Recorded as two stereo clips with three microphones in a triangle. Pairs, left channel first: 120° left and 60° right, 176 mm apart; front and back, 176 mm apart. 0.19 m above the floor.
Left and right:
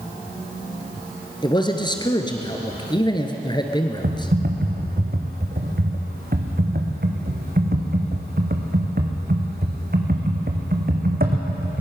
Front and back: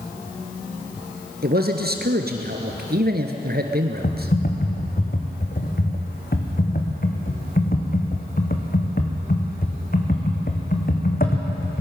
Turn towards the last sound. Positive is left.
turn(degrees=-30)